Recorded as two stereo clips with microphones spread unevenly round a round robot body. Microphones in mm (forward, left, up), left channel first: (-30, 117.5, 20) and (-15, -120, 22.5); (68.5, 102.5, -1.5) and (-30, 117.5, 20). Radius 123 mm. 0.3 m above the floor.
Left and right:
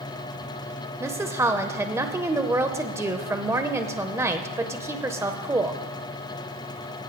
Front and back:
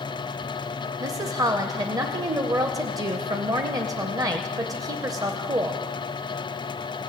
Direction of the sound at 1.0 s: 155° right.